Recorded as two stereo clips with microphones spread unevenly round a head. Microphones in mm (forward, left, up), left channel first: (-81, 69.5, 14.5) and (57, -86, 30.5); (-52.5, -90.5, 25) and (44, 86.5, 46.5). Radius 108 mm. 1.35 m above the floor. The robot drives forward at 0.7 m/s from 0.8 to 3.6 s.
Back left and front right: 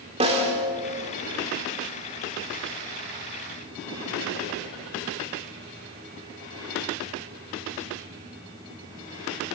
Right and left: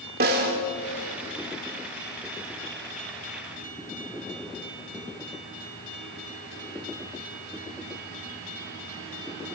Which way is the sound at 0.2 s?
15° left.